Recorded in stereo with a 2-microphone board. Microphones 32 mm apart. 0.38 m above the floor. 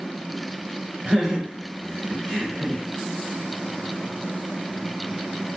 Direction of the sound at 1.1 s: 20° right (ahead or behind).